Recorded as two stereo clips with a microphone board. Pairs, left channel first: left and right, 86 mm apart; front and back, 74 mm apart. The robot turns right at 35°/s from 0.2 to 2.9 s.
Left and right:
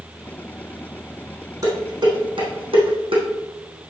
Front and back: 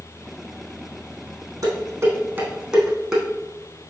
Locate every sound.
1.6 s dishes clattering: 135° right, 3.5 m; by 3.2 s 90° right, 3.5 m